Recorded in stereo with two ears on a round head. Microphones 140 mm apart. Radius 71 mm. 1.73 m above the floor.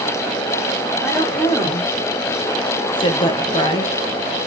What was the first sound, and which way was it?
A woman speaking, 15° left (ahead or behind).